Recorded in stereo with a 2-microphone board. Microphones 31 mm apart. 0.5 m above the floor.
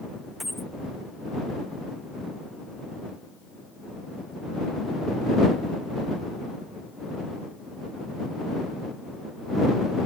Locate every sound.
0.4 s a dropped coin: centre (ahead or behind)